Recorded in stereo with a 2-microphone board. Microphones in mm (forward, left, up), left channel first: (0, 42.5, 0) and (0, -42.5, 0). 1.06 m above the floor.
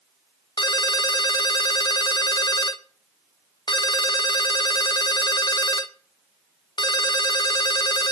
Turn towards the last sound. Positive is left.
turn(degrees=55)  # may be behind; listen again after turning